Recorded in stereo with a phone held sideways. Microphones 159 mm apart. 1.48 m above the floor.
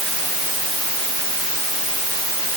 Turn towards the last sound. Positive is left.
No sound to turn to.